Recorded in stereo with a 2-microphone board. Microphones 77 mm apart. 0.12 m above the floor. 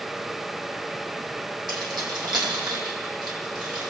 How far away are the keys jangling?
About 3 m.